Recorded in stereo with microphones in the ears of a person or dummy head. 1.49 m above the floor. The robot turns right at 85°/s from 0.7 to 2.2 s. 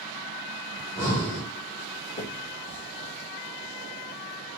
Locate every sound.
0.8 s breathing: 165° left, 1.6 m; by 1.5 s 135° right, 1.6 m
2.2 s a finger snap: 40° left (ahead or behind), 1.4 m; by 4.6 s 35° left (ahead or behind), 1.4 m